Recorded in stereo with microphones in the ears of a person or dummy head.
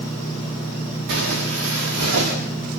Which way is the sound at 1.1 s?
70° right (ahead or behind).